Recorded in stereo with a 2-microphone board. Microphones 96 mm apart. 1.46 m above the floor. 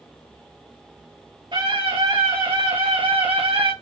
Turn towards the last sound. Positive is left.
turn(degrees=-75)  # may be behind; listen again after turning